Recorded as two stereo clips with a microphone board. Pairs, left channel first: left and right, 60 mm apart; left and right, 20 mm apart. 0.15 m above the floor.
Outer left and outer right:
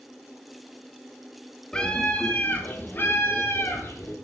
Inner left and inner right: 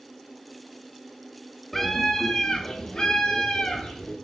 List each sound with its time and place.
1.7 s a scream: 15° left (ahead or behind), 1.1 m; by 4.2 s 50° left (ahead or behind), 2.5 m